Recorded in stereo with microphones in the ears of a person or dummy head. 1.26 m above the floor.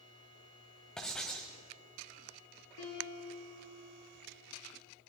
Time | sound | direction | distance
1.0 | writing | centre (ahead or behind) | 1.3 m
2.8 | a piano | 75° left (ahead or behind) | 6.5 m